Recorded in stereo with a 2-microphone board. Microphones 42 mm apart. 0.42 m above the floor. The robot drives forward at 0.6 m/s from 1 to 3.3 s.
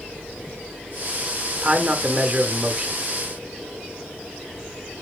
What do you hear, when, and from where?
1.6 s a man speaking: 20° right (ahead or behind), 1.0 m